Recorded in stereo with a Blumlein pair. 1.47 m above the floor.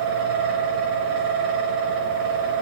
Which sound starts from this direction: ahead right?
A fan, at 0.0 s.